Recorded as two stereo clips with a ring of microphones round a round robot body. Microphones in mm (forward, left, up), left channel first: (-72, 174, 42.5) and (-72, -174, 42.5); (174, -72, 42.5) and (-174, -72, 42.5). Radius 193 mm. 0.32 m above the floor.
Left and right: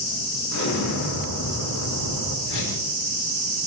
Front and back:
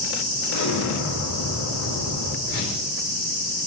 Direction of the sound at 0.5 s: 45° left.